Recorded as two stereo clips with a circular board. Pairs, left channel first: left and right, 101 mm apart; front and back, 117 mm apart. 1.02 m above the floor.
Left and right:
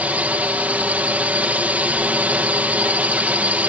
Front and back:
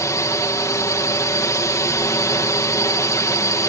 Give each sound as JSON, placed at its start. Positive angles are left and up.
{"t": 0.0, "sound": "a drone", "azimuth_deg": -30}